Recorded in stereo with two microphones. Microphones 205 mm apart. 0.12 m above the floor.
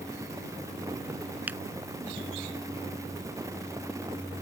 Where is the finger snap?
10° right (ahead or behind).